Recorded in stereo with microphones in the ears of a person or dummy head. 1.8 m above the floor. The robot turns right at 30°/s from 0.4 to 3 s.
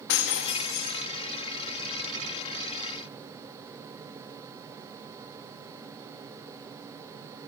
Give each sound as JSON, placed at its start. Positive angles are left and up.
{"t": 0.1, "sound": "breaking glass", "side_deg": 60, "distance_m": 1.9}